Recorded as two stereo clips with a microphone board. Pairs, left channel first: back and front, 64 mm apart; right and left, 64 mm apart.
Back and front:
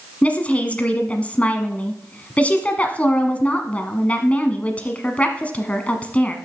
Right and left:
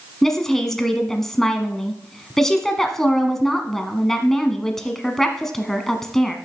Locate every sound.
0.2 s a woman speaking: 165° right, 1.2 m